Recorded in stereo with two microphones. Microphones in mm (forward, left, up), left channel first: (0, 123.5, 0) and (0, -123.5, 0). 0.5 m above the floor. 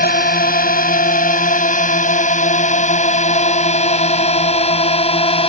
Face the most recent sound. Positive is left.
turn(degrees=20)  # may be behind; listen again after turning